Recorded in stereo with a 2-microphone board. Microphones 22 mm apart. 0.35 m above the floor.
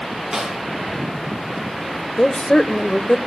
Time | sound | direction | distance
0.3 | a snare drum | 40° right (ahead or behind) | 5.5 m
2.2 | a woman speaking | 35° left (ahead or behind) | 1.3 m